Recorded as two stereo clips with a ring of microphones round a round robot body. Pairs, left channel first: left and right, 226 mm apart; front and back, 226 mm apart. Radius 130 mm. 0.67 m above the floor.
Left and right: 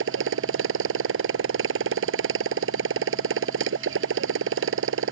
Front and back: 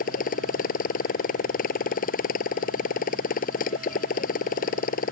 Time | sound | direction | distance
0.0 | a motorcycle | 60° right | ?